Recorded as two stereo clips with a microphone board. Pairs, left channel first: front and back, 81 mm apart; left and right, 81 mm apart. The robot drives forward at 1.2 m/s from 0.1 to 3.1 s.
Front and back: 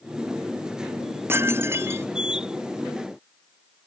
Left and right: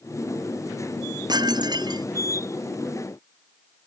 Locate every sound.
1.3 s dishes clattering: 120° right